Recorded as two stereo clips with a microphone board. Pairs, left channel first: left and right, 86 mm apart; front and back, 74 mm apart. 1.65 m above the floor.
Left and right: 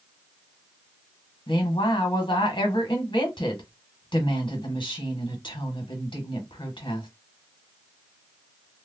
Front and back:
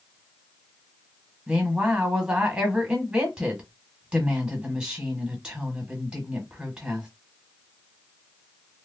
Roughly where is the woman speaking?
Left.